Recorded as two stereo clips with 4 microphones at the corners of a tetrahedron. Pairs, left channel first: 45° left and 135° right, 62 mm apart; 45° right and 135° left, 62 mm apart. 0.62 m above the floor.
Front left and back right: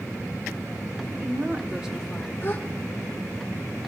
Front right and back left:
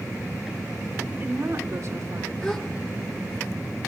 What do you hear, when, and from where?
1.1 s a woman speaking: 170° right, 1.8 m; by 2.3 s 110° left, 1.3 m
2.4 s a gasp: 20° left, 1.4 m